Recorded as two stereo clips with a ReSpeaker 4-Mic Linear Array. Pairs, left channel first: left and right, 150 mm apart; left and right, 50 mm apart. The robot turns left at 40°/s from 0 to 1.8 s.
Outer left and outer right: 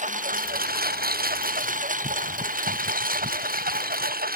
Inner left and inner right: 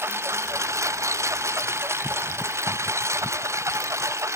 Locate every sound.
0.0 s a lawn mower: 55° right (ahead or behind); by 4.4 s 80° right